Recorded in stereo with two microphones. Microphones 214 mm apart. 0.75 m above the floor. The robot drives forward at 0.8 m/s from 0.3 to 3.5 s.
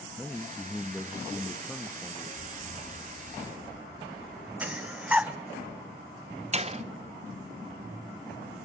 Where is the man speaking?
5° left (ahead or behind), 1.0 m; by 2.3 s centre (ahead or behind), 1.4 m.